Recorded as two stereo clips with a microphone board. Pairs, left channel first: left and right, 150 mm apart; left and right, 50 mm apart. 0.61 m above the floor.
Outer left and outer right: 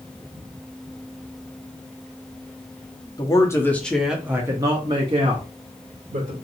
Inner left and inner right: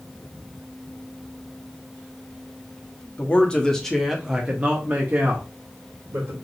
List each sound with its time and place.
3.2 s a man speaking: 25° left (ahead or behind), 0.9 m; by 6.3 s 55° right (ahead or behind), 1.4 m